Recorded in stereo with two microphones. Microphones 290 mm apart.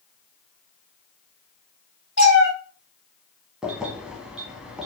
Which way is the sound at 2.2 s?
45° left (ahead or behind).